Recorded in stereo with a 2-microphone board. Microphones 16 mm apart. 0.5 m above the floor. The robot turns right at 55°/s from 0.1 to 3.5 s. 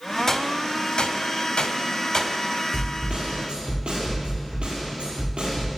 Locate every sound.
0.3 s a gunshot: 30° left (ahead or behind), 1.4 m; by 2.4 s 35° left (ahead or behind), 1.4 m
2.7 s a snare drum: 130° right, 6 m; by 5.7 s 90° right, 6 m